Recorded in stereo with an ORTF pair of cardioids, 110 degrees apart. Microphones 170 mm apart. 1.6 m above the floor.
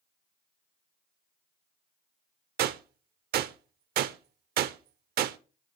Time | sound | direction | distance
2.6 | a gunshot | 65° right | 0.7 m